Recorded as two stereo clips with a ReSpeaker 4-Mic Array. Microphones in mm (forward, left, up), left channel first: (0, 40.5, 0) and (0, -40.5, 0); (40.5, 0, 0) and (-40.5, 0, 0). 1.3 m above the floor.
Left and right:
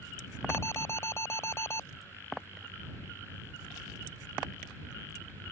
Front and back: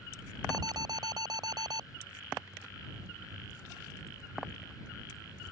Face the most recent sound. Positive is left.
turn(degrees=150)